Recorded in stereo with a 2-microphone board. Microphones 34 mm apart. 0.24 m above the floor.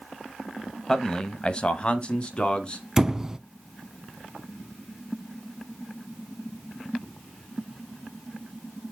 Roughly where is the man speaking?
Centre.